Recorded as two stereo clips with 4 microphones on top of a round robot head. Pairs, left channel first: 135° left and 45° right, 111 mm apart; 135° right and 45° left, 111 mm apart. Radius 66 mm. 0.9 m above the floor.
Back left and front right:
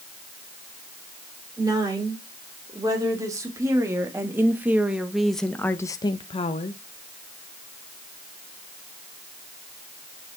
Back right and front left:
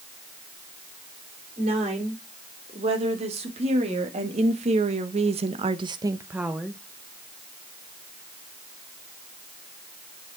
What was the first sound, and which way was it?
A woman speaking, 10° left.